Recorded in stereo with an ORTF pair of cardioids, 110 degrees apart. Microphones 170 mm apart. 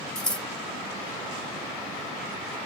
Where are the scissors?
5° left, 1.1 m.